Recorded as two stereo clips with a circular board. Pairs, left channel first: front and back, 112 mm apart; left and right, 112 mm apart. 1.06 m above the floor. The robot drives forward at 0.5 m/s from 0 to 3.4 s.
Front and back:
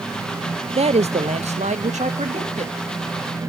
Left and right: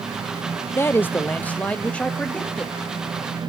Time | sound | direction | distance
0.8 | a man speaking | 155° left | 0.5 m